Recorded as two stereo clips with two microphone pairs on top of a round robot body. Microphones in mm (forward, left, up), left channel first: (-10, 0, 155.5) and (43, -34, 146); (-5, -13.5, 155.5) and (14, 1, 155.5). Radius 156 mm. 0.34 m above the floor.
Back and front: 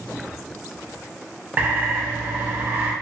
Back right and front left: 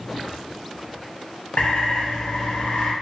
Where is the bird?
100° right, 0.6 m.